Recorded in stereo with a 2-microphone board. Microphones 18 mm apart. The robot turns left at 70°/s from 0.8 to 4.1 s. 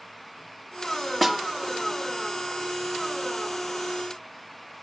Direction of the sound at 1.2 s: 5° left (ahead or behind).